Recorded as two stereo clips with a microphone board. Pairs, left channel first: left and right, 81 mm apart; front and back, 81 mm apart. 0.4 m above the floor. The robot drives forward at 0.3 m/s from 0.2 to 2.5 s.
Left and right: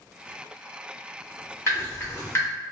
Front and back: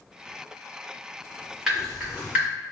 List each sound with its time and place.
1.7 s dripping: 100° left, 0.9 m; by 2.5 s 120° left, 0.9 m